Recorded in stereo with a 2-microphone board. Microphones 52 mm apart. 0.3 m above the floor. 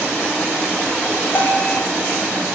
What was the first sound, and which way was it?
A bell, 40° left (ahead or behind).